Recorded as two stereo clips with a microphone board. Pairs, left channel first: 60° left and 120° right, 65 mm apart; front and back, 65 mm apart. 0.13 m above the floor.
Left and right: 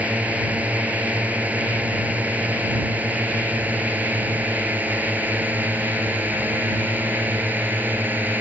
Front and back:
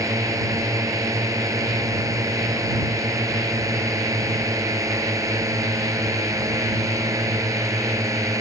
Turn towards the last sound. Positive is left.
turn(degrees=-175)